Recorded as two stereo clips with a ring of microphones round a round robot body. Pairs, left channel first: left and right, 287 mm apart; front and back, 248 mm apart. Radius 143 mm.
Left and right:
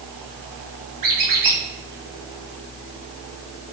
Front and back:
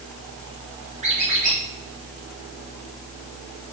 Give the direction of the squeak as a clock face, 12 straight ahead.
4 o'clock.